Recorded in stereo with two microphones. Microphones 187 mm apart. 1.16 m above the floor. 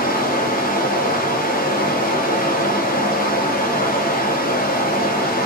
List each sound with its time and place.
0.0 s running water: 50° left (ahead or behind), 0.7 m